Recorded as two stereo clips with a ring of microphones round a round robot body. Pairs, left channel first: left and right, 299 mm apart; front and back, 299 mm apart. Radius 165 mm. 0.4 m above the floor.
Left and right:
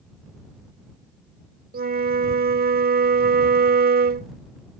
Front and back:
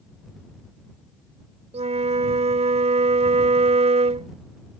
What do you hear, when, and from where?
1.7 s a flute: 125° right